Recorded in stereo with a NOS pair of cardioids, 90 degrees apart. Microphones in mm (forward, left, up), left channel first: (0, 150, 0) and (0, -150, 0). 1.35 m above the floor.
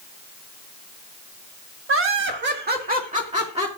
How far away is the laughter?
About 1.4 m.